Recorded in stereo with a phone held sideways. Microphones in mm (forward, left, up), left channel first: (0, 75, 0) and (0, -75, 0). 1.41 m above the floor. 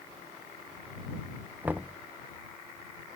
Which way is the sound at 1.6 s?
10° right (ahead or behind).